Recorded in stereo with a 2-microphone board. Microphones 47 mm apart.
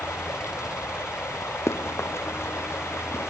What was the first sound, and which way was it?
Running water, 75° left (ahead or behind).